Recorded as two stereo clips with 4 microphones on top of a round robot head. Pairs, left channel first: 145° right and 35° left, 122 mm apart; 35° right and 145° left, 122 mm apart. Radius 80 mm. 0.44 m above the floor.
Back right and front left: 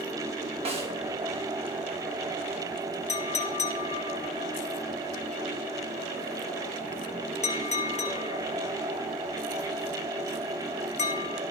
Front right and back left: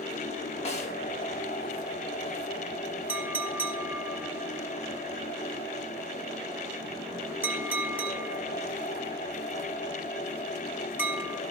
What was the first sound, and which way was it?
A snare drum, 5° right.